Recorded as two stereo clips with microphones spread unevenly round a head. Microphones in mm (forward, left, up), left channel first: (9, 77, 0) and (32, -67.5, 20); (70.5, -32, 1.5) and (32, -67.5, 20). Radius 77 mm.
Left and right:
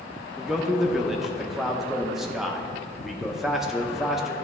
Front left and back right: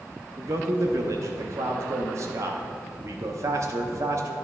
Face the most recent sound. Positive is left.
turn(degrees=-175)